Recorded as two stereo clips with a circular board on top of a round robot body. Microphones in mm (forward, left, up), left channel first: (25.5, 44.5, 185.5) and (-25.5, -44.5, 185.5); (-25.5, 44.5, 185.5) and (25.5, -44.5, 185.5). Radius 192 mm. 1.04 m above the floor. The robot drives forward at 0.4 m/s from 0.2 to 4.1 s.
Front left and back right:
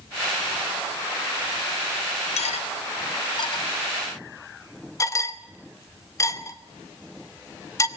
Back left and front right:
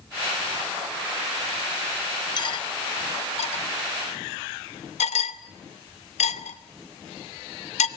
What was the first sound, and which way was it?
Cutlery clinking, 75° left.